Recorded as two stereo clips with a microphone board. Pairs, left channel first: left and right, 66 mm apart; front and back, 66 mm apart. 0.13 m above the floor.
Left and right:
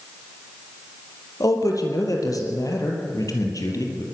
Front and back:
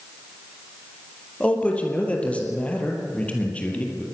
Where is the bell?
No bell in this recording.